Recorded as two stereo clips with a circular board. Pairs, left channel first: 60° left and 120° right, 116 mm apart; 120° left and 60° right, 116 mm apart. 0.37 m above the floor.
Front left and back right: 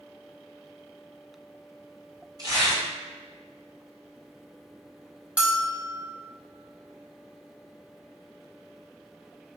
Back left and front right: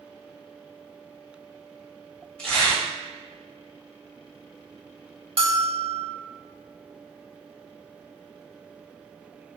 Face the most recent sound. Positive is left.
turn(degrees=-40)